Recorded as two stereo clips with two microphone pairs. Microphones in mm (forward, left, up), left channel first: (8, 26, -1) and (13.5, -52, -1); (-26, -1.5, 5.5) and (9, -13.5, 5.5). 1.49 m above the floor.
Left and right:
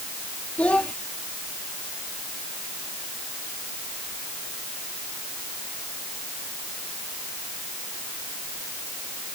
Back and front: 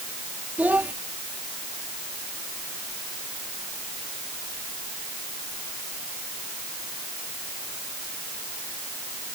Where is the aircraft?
No aircraft in this recording.